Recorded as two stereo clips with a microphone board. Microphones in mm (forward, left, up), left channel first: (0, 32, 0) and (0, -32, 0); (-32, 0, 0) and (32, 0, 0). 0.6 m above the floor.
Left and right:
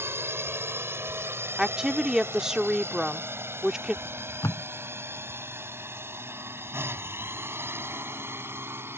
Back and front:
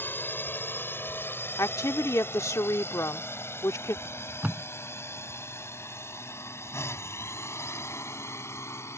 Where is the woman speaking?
170° right.